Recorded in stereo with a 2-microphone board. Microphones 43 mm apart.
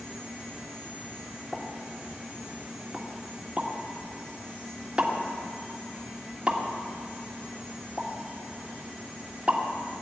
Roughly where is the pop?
Right.